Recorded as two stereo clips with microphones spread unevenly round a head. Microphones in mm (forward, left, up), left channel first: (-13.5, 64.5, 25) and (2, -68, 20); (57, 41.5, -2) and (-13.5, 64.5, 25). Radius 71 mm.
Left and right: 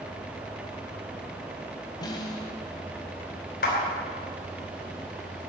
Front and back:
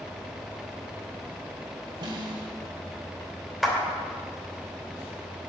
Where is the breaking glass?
I don't hear breaking glass.